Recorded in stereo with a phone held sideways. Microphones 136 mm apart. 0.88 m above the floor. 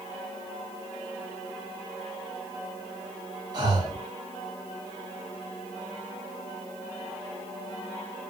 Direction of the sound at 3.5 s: 30° right (ahead or behind).